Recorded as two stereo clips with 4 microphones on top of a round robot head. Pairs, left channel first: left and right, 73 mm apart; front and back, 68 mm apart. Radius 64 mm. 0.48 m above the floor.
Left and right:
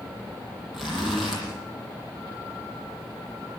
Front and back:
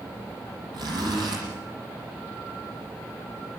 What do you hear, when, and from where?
0.7 s a zipper: 175° right, 8.5 m